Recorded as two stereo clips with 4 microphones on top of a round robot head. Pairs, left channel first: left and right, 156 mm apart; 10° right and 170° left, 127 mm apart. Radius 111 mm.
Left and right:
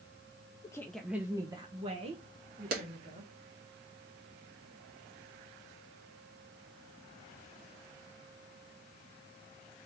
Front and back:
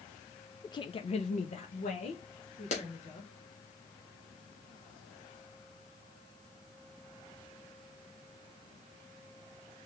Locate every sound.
0.6 s a woman speaking: 40° left, 0.5 m; by 3.3 s 45° right, 2 m
2.7 s a clap: 55° right, 1.6 m